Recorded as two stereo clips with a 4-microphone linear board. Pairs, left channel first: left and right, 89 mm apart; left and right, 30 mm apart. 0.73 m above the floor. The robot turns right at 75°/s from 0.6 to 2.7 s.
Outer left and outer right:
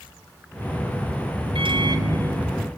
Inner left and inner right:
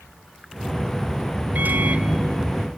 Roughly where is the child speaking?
I don't hear a child speaking.